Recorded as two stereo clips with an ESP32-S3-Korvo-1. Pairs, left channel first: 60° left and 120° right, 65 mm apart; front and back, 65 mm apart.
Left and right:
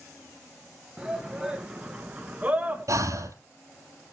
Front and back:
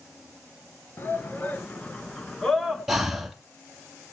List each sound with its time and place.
1.0 s a shout: 45° right, 2.5 m; by 2.9 s 90° right, 1.6 m
2.9 s breathing: 95° right, 2 m